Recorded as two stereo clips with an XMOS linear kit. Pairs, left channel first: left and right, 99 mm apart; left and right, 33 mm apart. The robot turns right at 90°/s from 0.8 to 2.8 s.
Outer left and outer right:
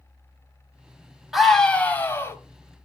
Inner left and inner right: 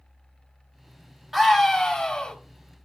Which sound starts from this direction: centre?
A scream, at 1.3 s.